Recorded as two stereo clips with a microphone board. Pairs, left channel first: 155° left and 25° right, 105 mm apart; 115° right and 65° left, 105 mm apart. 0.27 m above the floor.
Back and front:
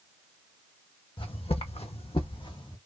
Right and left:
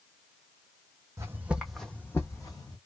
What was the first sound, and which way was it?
Footsteps, 130° left.